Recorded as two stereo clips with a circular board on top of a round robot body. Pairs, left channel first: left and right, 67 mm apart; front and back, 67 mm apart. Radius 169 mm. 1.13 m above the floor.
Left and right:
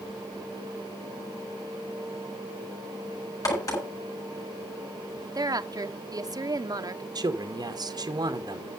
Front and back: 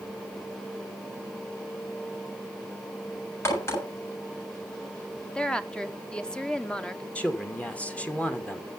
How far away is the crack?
About 7.5 m.